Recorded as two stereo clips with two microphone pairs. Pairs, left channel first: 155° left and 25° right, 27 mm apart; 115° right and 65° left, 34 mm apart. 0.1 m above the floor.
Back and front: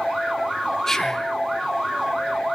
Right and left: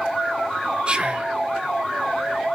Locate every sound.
0.9 s whispering: 95° left, 1.7 m